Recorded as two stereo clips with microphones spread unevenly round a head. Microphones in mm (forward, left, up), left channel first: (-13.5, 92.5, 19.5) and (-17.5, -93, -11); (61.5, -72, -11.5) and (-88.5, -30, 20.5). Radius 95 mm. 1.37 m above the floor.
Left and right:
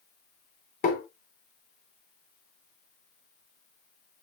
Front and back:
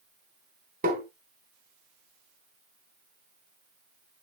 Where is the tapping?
125° left, 3 m.